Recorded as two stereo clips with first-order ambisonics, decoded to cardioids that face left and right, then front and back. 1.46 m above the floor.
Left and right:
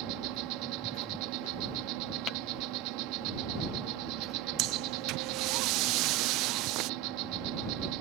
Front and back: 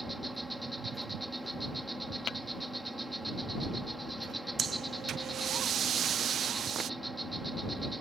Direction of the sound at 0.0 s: 95° right.